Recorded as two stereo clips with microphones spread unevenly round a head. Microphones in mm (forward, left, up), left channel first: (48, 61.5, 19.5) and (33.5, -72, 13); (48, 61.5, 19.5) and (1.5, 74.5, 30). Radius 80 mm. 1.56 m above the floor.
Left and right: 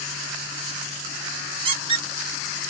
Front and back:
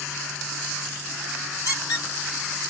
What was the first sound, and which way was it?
A squeak, 50° right.